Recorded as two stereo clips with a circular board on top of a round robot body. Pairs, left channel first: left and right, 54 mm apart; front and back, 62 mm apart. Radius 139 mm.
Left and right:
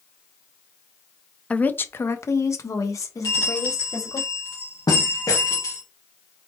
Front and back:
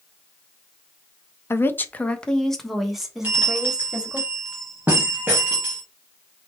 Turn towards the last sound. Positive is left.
turn(degrees=120)